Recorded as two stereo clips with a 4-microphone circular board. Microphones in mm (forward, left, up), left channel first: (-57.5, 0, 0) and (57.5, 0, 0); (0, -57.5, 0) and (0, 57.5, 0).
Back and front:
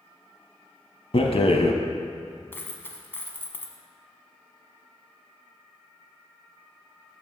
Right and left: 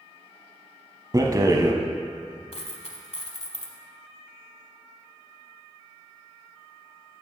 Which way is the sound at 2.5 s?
110° right.